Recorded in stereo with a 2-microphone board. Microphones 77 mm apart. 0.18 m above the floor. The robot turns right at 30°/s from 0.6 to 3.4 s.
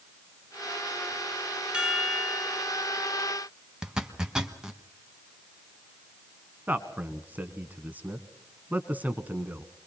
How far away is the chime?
About 1.4 m.